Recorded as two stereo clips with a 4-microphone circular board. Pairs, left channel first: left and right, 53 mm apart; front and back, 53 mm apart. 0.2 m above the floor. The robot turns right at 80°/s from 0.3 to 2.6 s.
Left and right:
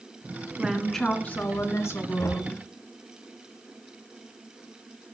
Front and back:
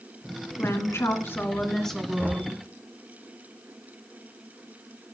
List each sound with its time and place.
0.6 s a woman speaking: 20° right, 2 m; by 2.6 s 140° left, 2 m
2.2 s knocking: 75° left, 3 m; by 2.5 s 100° left, 3 m